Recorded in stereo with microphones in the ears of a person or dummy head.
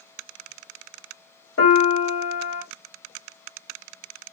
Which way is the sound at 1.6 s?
85° left.